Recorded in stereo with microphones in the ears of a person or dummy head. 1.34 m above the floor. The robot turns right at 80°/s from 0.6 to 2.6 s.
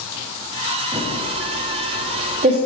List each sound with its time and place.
0.9 s typing on a keyboard: 5° right (ahead or behind), 1.0 m; by 2.6 s 30° right (ahead or behind), 1.0 m